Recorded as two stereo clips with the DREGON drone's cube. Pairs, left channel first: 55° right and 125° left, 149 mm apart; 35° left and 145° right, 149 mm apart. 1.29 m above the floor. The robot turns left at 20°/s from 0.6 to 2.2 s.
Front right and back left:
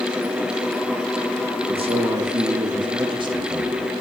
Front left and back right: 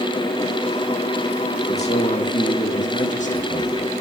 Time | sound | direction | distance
1.7 | a man speaking | 75° left | 1.9 m